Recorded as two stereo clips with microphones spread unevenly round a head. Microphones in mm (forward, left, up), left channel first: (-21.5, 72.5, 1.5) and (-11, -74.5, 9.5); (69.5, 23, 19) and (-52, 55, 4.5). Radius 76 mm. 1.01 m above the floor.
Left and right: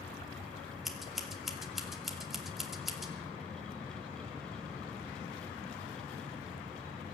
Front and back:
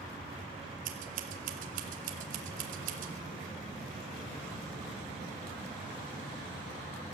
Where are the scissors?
175° right, 2.5 m.